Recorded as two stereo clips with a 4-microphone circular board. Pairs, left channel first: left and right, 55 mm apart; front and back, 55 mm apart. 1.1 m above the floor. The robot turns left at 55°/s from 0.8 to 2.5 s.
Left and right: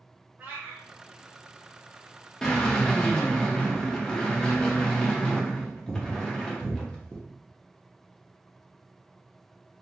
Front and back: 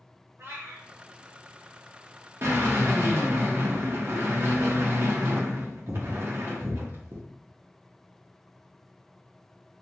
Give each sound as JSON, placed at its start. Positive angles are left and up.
{"t": 0.4, "sound": "a cat meowing", "azimuth_deg": -145, "distance_m": 1.2}
{"t": 2.4, "sound": "a drill", "azimuth_deg": 165, "distance_m": 0.8}